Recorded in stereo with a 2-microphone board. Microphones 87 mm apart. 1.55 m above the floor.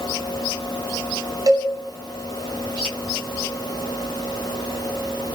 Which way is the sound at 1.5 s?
45° right (ahead or behind).